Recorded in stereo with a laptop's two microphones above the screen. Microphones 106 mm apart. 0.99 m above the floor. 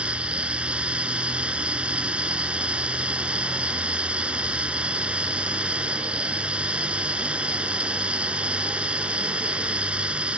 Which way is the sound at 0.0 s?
10° right (ahead or behind).